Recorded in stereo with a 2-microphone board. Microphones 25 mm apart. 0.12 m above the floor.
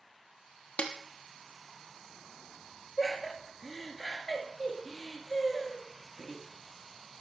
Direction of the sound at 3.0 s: 20° left (ahead or behind).